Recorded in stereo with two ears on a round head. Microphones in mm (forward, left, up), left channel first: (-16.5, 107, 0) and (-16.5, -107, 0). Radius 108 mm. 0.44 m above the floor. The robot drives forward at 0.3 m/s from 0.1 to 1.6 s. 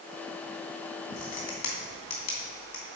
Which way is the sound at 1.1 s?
75° left (ahead or behind).